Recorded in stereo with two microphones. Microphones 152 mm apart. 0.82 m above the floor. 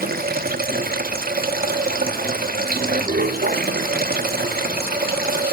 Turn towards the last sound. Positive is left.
turn(degrees=-85)